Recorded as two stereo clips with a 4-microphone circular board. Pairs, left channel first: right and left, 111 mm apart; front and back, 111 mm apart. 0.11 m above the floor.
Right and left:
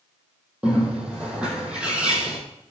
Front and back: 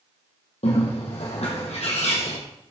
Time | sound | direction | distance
0.6 | a bird | 10° left | 4 m